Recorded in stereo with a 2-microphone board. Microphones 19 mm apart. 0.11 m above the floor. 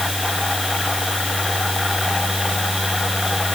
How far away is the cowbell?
I don't hear a cowbell.